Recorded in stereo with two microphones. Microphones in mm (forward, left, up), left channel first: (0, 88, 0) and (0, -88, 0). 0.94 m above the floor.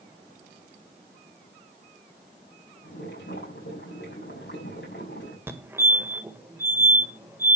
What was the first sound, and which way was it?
Boiling, 85° left.